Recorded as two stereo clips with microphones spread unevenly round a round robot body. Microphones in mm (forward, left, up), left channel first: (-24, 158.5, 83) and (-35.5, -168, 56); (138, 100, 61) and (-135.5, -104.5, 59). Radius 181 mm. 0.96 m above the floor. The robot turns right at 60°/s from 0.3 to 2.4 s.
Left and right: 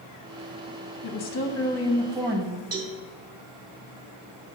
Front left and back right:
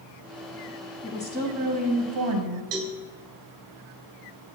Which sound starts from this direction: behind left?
A woman speaking, at 1.0 s.